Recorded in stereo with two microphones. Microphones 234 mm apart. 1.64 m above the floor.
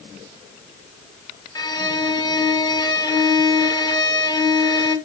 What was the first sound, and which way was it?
A violin, 20° left (ahead or behind).